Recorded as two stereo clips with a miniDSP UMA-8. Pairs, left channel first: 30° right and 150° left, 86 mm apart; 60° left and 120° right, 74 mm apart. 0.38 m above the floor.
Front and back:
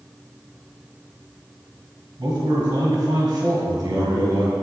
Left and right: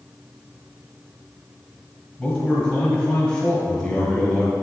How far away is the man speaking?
About 1.9 m.